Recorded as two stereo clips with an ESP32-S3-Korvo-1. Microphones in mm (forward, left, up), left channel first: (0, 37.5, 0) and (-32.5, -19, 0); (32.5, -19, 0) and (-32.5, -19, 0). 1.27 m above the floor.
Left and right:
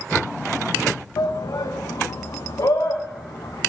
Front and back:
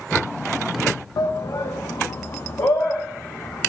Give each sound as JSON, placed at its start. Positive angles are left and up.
{"t": 1.2, "sound": "a shout", "azimuth_deg": 30, "distance_m": 0.7}